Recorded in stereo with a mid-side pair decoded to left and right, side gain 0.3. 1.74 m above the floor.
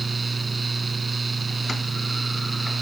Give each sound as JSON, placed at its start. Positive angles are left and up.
{"t": 0.0, "sound": "a fan", "azimuth_deg": -40}